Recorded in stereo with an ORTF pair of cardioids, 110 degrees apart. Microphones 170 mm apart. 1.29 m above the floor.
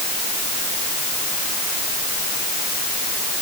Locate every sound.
Only background noise.